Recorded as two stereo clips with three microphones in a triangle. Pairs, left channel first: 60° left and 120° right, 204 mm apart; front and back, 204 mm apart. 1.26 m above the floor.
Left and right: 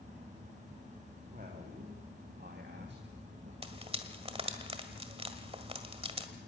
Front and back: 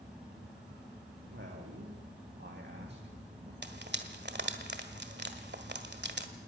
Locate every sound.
1.3 s a man speaking: 165° right, 2.5 m; by 3.5 s 140° right, 1.7 m
3.6 s frying: 175° right, 1.6 m